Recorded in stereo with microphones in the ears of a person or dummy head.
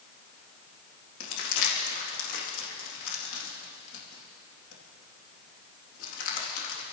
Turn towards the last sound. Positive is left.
turn(degrees=80)